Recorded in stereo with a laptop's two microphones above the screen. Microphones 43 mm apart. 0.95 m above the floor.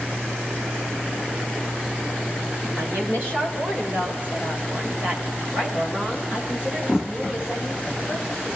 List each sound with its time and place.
2.8 s a woman speaking: 55° right (ahead or behind), 3.5 m; by 8.5 s 5° right (ahead or behind), 5.5 m